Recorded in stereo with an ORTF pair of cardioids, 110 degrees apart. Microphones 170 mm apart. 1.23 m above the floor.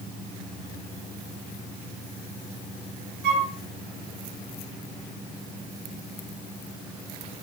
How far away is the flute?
About 1.0 m.